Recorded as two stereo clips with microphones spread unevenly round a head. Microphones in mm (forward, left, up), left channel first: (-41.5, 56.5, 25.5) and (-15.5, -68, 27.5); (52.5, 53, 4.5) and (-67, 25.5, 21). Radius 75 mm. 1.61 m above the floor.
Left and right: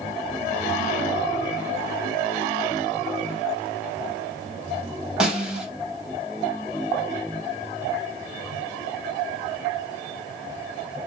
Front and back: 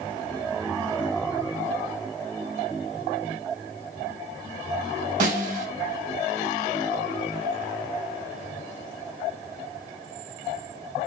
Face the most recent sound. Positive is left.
turn(degrees=-160)